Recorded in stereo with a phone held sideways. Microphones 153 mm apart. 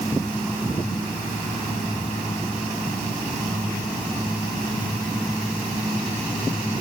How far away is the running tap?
No running tap in this recording.